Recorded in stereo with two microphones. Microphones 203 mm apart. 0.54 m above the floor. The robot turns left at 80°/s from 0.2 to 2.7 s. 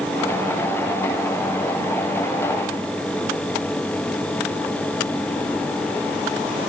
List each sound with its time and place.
Only background noise.